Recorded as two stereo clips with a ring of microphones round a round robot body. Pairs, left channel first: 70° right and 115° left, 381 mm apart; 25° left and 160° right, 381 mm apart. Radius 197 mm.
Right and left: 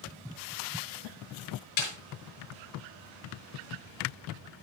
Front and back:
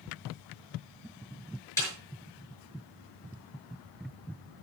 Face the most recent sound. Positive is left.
turn(degrees=-60)